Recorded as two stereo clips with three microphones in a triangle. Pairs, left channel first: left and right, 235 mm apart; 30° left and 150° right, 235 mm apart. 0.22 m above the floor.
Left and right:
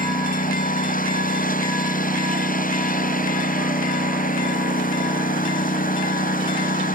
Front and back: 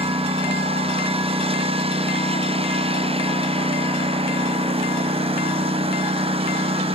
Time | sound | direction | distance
0.0 | a lawn mower | 145° left | ?